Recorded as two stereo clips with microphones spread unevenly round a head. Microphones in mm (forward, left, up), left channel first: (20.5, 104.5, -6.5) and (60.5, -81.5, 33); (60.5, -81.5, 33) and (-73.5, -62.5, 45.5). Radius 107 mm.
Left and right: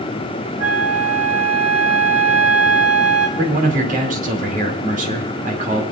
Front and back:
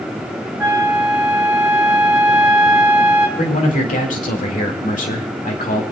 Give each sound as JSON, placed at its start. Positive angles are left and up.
{"t": 0.6, "sound": "a flute", "azimuth_deg": -115, "distance_m": 7.0}
{"t": 3.4, "sound": "a man speaking", "azimuth_deg": -30, "distance_m": 2.5}